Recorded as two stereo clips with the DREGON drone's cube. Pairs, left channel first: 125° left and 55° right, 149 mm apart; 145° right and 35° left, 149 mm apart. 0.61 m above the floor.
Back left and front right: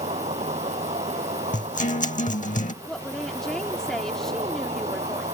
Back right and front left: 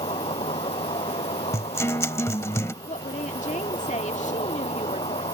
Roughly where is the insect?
Right.